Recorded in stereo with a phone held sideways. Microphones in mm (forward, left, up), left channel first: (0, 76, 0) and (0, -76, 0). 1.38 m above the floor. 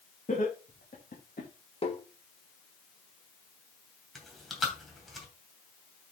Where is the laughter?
55° left (ahead or behind), 3 m; by 1.5 s 80° left, 2.5 m.